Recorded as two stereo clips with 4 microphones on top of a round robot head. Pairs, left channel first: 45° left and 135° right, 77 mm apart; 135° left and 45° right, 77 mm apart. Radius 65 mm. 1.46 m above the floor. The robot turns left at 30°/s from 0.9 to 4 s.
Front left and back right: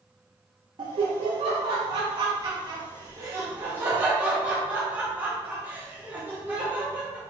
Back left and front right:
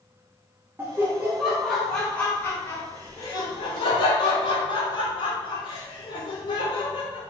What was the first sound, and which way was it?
Laughter, 110° right.